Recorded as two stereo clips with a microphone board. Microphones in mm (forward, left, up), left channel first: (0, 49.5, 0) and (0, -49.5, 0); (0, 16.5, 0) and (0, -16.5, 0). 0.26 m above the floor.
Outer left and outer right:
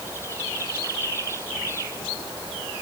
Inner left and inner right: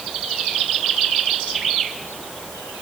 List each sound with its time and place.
Only background noise.